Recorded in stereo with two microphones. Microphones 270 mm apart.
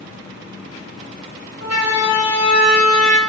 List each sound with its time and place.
1.6 s a siren: 65° left (ahead or behind), 3 m; by 3.2 s 75° left (ahead or behind), 3.5 m